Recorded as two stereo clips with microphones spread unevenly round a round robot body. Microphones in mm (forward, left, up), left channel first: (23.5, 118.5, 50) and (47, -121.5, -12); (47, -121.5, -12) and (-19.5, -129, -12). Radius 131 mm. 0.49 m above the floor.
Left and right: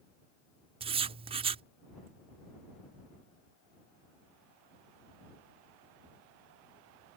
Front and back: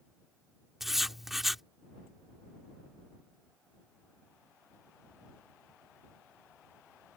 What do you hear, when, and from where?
0.8 s writing: 90° right